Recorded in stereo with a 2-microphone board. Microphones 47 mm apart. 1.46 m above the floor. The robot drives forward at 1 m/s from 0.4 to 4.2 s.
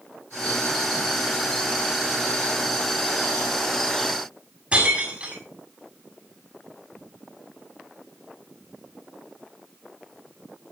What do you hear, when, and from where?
4.7 s breaking glass: 25° right (ahead or behind), 7 m